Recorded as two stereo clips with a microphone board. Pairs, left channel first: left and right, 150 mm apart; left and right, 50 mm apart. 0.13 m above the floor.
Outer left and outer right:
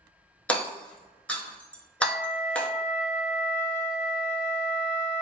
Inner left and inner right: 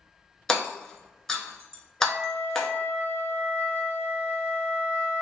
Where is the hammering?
10° left (ahead or behind), 0.6 m.